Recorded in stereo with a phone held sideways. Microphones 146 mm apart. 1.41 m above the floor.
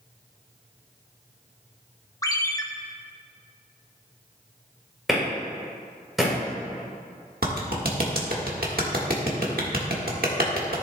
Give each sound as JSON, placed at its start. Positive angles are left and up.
{"t": 2.2, "sound": "a ringtone", "side_deg": 25, "distance_m": 0.6}
{"t": 5.1, "sound": "a clap", "side_deg": 0, "distance_m": 3.5}
{"t": 7.4, "sound": "a clap", "side_deg": -75, "distance_m": 1.5}